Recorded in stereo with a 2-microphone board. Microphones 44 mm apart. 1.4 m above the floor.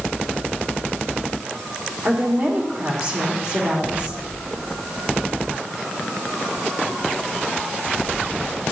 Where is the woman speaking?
50° right (ahead or behind), 2.5 m.